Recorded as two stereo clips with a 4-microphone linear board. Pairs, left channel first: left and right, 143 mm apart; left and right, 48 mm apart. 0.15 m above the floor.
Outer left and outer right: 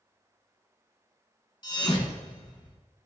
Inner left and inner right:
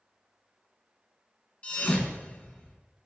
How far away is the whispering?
I don't hear whispering.